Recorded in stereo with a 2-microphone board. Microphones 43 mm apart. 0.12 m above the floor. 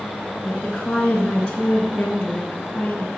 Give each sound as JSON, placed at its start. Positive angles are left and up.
{"t": 0.4, "sound": "a woman speaking", "side_deg": 20, "distance_m": 1.7}